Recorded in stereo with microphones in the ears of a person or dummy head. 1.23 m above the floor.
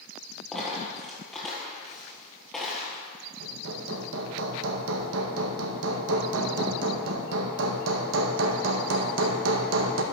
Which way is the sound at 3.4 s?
75° right (ahead or behind).